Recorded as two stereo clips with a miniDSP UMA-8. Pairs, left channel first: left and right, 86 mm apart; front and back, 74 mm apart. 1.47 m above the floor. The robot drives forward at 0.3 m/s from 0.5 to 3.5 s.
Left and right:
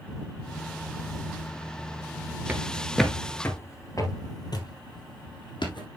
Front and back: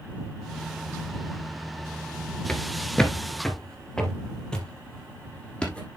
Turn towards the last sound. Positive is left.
turn(degrees=75)